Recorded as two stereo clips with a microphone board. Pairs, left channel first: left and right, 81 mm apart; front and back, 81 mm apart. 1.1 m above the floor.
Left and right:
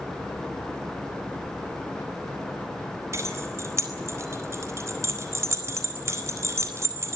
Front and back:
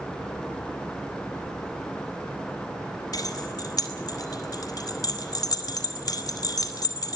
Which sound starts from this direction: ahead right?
Keys jangling, at 3.1 s.